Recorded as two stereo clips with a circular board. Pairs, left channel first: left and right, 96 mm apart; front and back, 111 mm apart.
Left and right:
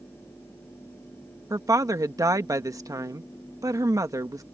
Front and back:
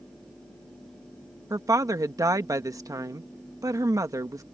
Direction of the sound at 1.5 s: 130° right.